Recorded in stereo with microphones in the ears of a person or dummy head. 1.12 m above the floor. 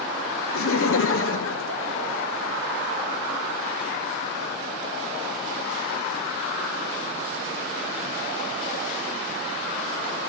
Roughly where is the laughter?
Left.